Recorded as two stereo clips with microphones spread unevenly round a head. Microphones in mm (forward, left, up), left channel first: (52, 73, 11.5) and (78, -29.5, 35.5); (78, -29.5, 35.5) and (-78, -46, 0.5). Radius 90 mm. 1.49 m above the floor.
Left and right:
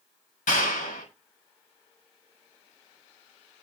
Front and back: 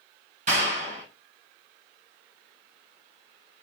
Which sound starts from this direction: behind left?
A clap, at 0.5 s.